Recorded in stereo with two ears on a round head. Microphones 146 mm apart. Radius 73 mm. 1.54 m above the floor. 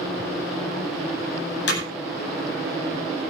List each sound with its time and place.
1.7 s hammering: 75° left (ahead or behind), 9.5 m